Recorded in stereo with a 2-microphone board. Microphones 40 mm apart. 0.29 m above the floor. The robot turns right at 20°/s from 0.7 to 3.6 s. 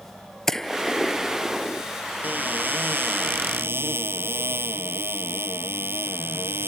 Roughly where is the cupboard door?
Right.